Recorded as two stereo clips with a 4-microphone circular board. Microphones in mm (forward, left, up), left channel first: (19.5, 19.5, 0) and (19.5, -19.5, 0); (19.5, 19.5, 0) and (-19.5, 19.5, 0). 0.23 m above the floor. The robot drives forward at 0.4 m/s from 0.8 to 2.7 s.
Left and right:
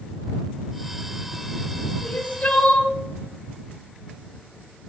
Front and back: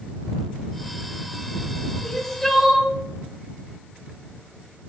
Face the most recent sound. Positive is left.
turn(degrees=105)